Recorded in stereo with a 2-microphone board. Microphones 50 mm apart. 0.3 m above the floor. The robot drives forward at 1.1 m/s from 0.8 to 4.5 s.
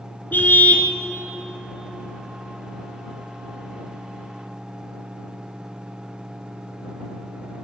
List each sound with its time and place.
0.3 s a car horn: 40° left (ahead or behind), 2 m